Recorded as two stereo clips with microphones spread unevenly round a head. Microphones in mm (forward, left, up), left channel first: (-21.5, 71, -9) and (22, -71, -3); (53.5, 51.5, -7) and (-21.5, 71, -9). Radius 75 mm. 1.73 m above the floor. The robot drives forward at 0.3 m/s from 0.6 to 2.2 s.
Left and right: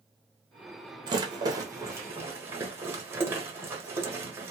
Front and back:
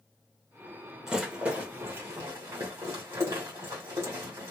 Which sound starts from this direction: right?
A rattle, at 1.1 s.